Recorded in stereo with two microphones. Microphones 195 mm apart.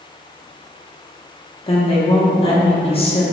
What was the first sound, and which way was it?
A woman speaking, 30° left (ahead or behind).